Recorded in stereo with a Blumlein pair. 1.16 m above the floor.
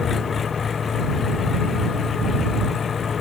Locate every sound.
0.0 s an engine running: 20° left